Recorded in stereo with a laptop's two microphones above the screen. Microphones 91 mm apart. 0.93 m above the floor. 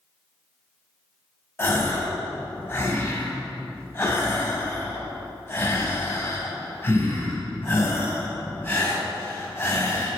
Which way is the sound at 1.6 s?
30° left (ahead or behind).